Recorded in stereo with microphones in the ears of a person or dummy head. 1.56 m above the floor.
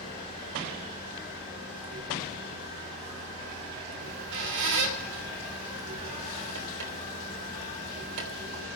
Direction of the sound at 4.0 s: 60° right (ahead or behind).